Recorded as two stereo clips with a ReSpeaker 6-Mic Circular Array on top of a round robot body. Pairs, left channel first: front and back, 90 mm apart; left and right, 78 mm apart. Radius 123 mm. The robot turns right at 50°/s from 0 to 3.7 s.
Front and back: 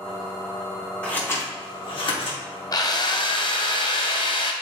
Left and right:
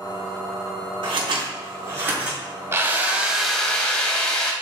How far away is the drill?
About 1.7 m.